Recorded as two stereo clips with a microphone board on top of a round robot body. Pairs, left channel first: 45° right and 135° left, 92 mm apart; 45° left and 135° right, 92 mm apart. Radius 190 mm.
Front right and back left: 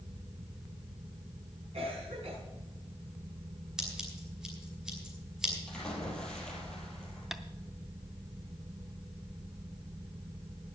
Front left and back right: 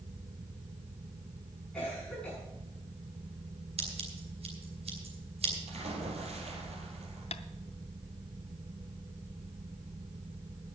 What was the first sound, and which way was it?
A cough, 125° left.